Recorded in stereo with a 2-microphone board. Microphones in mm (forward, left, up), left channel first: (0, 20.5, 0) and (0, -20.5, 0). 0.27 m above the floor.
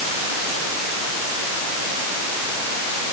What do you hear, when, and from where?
Only background noise.